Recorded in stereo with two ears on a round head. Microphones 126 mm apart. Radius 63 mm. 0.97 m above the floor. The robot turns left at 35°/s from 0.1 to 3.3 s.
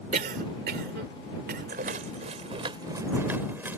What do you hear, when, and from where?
0.1 s a cough: 55° right (ahead or behind); by 1.8 s 65° right (ahead or behind)
1.7 s a rattle: 70° right (ahead or behind); by 3.8 s 15° right (ahead or behind)